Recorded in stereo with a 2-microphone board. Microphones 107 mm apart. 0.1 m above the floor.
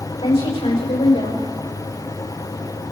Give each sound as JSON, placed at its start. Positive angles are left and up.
{"t": 0.2, "sound": "a woman speaking", "side_deg": 65, "distance_m": 6.5}